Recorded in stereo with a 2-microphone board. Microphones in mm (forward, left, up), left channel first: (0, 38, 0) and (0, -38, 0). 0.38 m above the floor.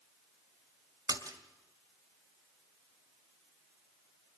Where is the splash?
55° right (ahead or behind), 2.5 m.